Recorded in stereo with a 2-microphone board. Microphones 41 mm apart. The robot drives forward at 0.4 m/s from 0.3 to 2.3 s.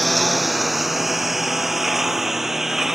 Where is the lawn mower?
Centre (ahead or behind); by 3.0 s 10° right (ahead or behind).